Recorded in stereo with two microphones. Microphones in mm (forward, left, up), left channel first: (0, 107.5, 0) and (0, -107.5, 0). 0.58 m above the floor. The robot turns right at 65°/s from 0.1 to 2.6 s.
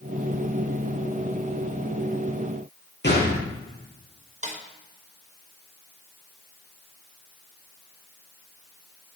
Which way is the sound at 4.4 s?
35° right (ahead or behind).